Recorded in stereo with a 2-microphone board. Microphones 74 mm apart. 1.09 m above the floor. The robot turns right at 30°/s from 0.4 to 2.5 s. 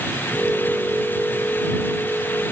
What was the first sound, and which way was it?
Only background noise.